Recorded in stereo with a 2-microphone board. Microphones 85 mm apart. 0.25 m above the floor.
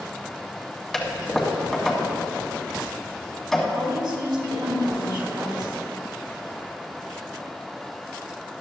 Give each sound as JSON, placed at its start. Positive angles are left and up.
{"t": 0.9, "sound": "a toilet flushing", "side_deg": 0, "distance_m": 2.0}
{"t": 3.7, "sound": "a woman speaking", "side_deg": -65, "distance_m": 3.5}